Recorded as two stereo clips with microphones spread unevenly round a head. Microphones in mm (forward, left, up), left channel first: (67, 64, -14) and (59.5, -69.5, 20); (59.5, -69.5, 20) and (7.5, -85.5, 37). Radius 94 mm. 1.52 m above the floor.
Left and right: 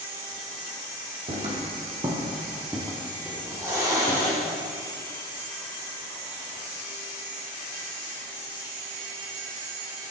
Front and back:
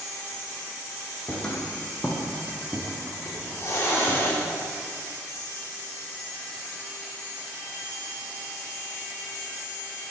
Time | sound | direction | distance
1.3 | footsteps | 70° right | 3 m
3.2 | a hiss | 25° right | 3.5 m